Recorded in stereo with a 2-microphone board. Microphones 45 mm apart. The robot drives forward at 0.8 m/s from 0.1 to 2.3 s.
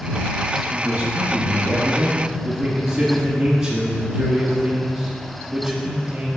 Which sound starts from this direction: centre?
A man speaking, at 0.7 s.